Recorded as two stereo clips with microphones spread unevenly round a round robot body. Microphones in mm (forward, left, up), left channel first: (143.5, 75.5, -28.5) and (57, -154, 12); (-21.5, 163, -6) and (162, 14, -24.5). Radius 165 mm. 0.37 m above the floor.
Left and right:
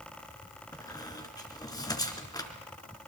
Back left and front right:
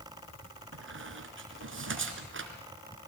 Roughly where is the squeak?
Ahead.